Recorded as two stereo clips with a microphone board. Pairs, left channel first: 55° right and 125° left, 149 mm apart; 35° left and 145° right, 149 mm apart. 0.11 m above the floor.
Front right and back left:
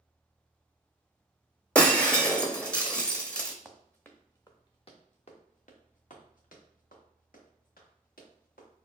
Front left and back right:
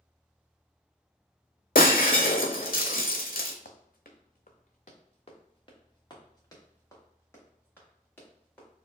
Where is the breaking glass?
30° left, 0.7 m.